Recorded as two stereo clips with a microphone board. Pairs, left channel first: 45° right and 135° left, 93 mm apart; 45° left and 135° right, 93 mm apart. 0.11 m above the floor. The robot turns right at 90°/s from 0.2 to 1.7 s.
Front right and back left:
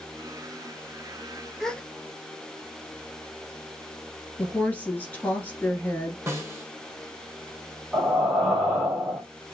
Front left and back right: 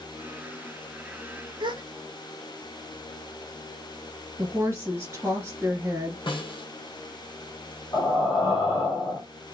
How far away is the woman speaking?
About 1.7 m.